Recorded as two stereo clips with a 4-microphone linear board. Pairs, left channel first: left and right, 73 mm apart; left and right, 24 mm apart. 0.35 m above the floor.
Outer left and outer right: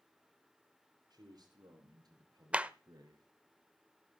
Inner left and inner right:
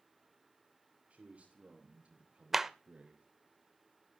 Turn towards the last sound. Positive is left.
turn(degrees=-15)  # may be behind; listen again after turning